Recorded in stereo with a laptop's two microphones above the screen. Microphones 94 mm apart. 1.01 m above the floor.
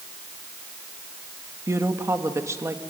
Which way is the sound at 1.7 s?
30° right (ahead or behind).